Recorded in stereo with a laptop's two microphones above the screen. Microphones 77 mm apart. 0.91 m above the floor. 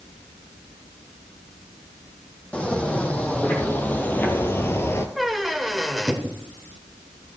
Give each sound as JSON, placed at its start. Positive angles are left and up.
{"t": 2.5, "sound": "footsteps", "side_deg": 15, "distance_m": 2.5}
{"t": 5.2, "sound": "a squeak", "side_deg": 0, "distance_m": 1.1}